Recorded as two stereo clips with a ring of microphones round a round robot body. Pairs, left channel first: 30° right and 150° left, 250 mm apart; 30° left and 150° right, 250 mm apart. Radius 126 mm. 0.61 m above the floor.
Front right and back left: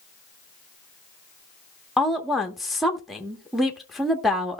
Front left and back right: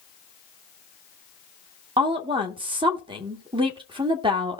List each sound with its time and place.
2.0 s a woman speaking: 120° right, 1.1 m